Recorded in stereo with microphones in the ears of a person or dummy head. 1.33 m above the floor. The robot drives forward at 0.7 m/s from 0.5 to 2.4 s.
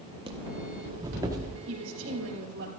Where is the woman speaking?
75° right (ahead or behind), 3 m; by 2.7 s 65° right (ahead or behind), 3 m.